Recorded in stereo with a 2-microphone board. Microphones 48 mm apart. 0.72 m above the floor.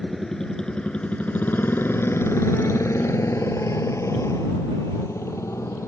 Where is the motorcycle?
5° left (ahead or behind); by 5.9 s 80° left.